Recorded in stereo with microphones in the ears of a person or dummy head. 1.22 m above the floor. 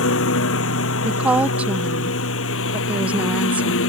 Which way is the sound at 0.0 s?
85° left.